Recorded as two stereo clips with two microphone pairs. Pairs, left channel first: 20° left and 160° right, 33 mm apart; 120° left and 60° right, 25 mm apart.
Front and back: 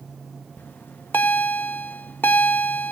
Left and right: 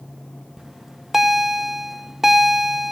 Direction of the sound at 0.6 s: 15° left.